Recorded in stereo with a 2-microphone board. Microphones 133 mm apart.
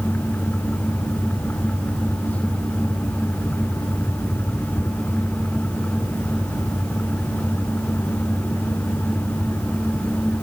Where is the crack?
No crack in this recording.